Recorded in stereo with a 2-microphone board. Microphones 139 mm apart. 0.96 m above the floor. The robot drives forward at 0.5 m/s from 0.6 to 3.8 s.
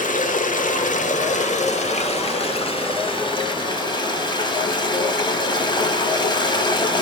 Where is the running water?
70° left (ahead or behind), 1.3 m; by 7.0 s 35° left (ahead or behind), 2 m.